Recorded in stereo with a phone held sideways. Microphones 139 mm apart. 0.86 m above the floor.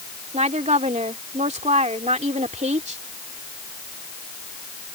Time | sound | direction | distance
0.3 | a woman speaking | 55° right (ahead or behind) | ?